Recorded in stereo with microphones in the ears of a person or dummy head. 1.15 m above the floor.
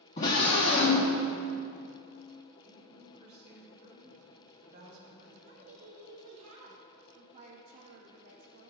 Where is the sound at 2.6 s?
25° right (ahead or behind), 1.8 m.